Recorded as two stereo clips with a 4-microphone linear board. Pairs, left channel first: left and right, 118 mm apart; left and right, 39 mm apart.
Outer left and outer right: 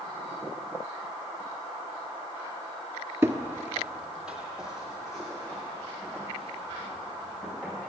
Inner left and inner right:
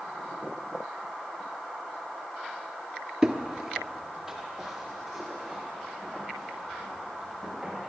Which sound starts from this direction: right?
Footsteps, at 3.2 s.